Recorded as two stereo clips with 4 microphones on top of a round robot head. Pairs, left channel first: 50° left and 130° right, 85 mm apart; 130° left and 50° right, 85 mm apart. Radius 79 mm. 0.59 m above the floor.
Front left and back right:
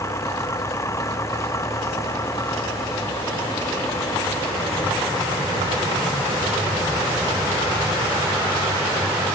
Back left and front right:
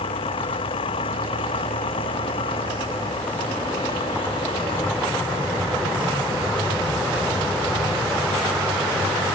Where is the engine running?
105° left.